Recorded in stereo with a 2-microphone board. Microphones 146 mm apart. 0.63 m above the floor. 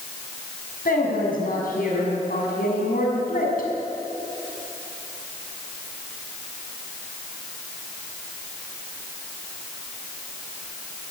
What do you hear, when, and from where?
0.8 s a woman speaking: 75° left (ahead or behind), 6 m